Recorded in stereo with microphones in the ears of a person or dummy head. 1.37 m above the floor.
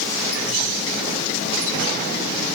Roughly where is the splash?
I don't hear a splash.